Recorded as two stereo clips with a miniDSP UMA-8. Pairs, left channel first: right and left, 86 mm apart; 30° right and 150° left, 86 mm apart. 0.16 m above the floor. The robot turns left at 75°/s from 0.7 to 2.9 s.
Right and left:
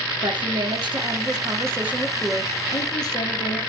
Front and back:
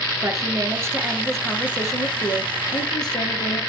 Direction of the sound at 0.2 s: 110° left.